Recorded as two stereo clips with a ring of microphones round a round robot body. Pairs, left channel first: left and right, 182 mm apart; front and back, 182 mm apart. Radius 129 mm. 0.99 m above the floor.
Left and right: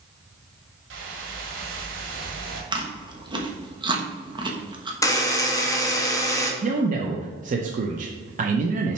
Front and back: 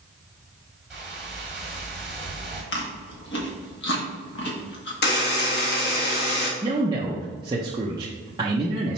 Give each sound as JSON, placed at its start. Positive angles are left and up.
{"t": 0.9, "sound": "a whoosh", "azimuth_deg": -95, "distance_m": 1.7}
{"t": 2.7, "sound": "chewing", "azimuth_deg": -25, "distance_m": 1.2}
{"t": 5.0, "sound": "a buzzer", "azimuth_deg": 20, "distance_m": 1.6}
{"t": 6.6, "sound": "a man speaking", "azimuth_deg": -120, "distance_m": 0.5}